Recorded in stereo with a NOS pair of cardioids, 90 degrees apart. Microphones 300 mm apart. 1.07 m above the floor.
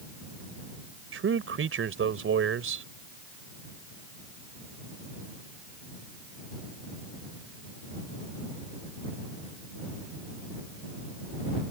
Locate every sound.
1.1 s a man speaking: 45° right